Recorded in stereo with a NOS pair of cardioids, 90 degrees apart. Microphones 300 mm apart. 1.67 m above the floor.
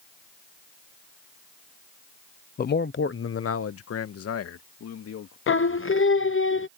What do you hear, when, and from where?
2.6 s a man speaking: 30° left; by 5.4 s 55° left
5.5 s singing: 45° left